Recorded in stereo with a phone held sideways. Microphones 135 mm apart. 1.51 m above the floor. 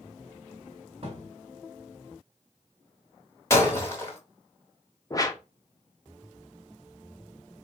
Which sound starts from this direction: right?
A thud, at 1.0 s.